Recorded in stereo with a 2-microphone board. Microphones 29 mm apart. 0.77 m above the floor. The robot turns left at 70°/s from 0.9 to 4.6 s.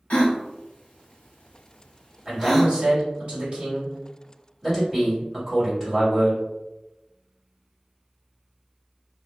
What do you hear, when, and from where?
0.1 s a gasp: 50° left (ahead or behind), 0.7 m; by 2.7 s 5° right (ahead or behind), 0.7 m
2.2 s a man speaking: 25° right, 1.7 m; by 6.4 s 170° left, 1.7 m